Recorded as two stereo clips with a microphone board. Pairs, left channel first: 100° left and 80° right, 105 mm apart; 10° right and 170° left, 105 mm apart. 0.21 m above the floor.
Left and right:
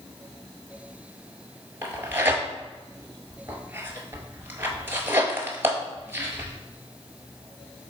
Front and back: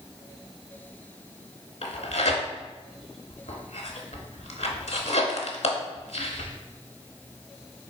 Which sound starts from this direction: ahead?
Tearing paper, at 1.8 s.